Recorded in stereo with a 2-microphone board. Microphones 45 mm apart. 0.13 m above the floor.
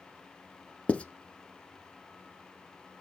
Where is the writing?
30° left (ahead or behind), 0.7 m.